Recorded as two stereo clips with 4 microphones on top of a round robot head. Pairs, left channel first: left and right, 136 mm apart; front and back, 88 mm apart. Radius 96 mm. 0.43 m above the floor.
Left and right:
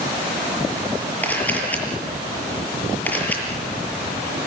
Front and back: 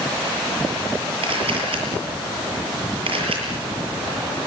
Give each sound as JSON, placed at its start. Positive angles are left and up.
{"t": 1.2, "sound": "a camera shutter", "azimuth_deg": 170, "distance_m": 7.0}